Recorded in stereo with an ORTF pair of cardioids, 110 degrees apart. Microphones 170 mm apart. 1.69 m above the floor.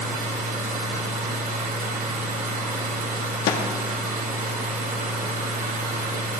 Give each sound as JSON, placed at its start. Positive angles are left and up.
{"t": 0.0, "sound": "a machine running", "azimuth_deg": -55, "distance_m": 2.5}
{"t": 3.5, "sound": "a snare drum", "azimuth_deg": 70, "distance_m": 1.3}